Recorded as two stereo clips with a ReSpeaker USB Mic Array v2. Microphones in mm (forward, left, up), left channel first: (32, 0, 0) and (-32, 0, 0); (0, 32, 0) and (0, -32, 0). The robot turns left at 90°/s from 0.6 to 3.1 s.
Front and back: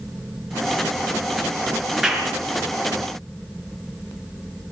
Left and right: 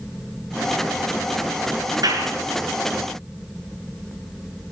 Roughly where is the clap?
Right.